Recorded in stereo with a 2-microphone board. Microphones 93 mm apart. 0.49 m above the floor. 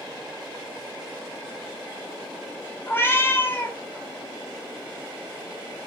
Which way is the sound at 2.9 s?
25° left (ahead or behind).